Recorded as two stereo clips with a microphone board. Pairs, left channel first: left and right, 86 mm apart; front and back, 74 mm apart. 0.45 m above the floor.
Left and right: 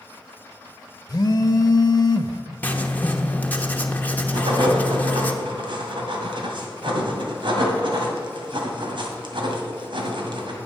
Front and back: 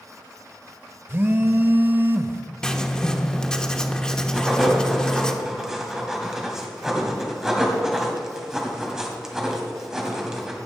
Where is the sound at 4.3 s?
95° right, 2 m.